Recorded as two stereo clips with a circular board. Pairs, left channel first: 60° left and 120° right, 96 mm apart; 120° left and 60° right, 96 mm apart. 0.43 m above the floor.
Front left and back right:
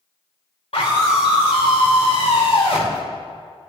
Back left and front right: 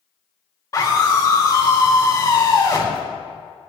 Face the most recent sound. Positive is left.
turn(degrees=65)